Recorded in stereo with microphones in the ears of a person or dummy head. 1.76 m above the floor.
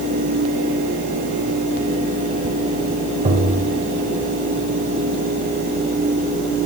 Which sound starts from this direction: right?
Tapping, at 3.2 s.